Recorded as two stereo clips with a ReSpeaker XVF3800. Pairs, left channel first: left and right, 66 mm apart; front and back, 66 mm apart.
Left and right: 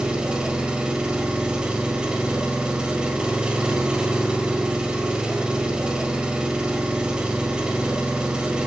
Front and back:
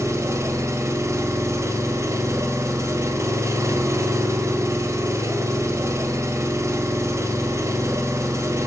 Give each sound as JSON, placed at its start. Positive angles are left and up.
{"t": 0.0, "sound": "an engine running", "azimuth_deg": -165, "distance_m": 1.8}